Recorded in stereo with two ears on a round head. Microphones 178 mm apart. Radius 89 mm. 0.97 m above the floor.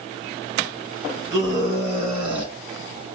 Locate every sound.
1.3 s a scream: 20° right (ahead or behind), 6 m; by 2.5 s 25° right (ahead or behind), 5.5 m